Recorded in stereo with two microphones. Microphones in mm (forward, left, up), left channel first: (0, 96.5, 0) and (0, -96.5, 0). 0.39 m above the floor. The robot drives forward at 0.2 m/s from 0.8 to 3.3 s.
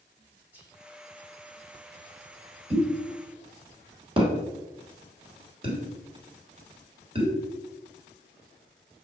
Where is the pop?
30° right (ahead or behind), 1.1 m; by 7.3 s 25° right (ahead or behind), 1.2 m.